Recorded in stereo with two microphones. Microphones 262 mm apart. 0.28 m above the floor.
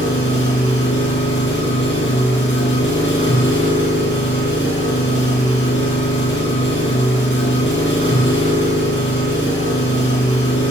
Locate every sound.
0.0 s an engine running: 45° left (ahead or behind), 3.5 m